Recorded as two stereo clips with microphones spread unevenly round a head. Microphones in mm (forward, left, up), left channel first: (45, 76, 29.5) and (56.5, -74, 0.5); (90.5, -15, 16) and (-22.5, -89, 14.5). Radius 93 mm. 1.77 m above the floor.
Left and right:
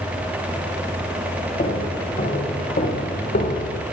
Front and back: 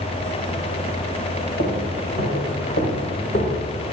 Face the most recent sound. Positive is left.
turn(degrees=80)